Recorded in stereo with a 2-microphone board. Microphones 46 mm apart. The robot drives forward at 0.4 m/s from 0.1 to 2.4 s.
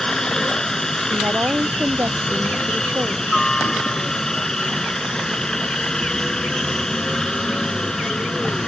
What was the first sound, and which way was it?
A helicopter, 10° left (ahead or behind).